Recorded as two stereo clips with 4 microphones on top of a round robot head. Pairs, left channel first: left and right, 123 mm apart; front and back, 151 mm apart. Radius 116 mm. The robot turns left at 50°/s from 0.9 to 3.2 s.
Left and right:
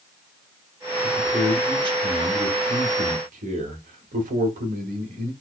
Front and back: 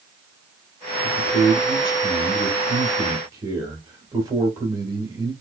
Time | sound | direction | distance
1.0 | a man speaking | 5° left | 1.6 m